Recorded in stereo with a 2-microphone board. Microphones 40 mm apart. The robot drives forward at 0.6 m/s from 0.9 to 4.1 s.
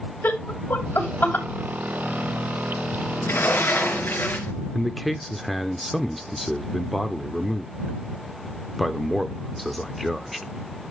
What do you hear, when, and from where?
0.2 s laughter: 55° left (ahead or behind), 3 m
3.2 s a sliding door: 70° left (ahead or behind), 2.5 m; by 4.5 s 60° left (ahead or behind), 2.5 m
4.7 s a man speaking: 5° left (ahead or behind), 0.8 m